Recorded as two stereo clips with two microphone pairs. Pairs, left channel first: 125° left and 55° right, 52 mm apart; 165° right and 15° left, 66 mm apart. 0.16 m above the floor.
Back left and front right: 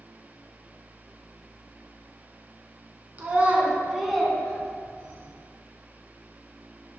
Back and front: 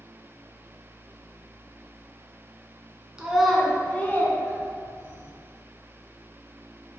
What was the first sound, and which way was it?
A child speaking, 55° right.